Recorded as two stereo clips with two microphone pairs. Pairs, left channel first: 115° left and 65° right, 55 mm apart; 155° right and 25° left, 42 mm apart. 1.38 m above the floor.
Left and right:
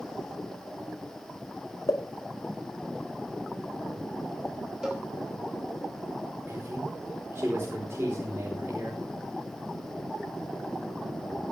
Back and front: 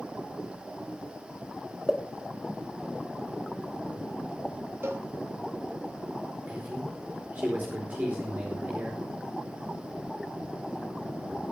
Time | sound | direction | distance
1.9 | a pop | 115° left | 1.7 m
4.8 | a cowbell | 15° left | 3 m
6.5 | a man speaking | 25° right | 4.5 m